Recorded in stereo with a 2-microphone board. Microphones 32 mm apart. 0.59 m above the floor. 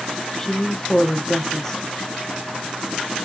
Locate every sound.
0.4 s a woman speaking: 15° left (ahead or behind), 0.6 m